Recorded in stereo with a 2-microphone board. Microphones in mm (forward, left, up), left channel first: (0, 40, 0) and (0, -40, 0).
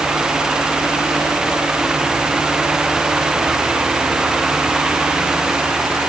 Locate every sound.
Only background noise.